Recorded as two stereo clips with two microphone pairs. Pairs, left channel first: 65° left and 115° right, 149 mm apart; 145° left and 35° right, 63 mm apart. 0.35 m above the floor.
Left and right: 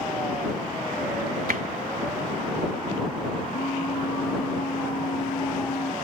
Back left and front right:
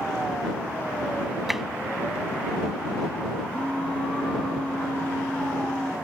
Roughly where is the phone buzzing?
Left.